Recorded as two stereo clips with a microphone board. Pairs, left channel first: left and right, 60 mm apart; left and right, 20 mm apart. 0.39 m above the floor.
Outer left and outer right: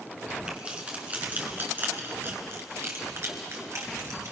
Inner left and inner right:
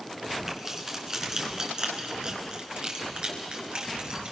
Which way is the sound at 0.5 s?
20° right (ahead or behind).